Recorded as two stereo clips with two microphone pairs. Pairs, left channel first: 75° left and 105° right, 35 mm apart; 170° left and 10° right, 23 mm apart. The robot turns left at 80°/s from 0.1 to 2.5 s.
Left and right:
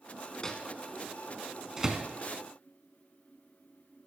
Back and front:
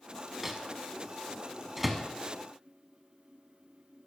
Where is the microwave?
50° left, 0.9 m; by 2.1 s 80° right, 0.9 m.